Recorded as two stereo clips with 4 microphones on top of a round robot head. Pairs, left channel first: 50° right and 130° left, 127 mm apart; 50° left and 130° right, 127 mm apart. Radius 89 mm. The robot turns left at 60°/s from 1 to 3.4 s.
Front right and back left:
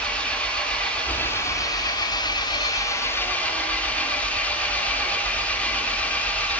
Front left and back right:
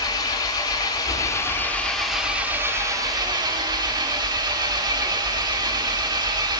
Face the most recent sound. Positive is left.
turn(degrees=-120)